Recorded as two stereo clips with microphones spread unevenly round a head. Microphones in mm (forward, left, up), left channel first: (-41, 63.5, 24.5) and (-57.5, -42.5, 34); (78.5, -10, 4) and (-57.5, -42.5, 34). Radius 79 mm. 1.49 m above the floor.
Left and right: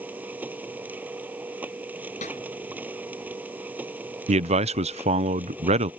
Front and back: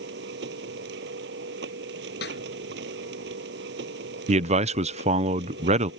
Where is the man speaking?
120° right.